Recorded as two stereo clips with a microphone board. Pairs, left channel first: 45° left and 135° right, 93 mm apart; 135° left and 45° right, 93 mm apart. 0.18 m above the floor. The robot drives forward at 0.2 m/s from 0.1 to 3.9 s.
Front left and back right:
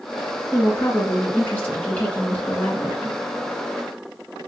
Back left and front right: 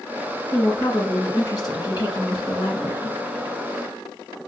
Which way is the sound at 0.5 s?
100° left.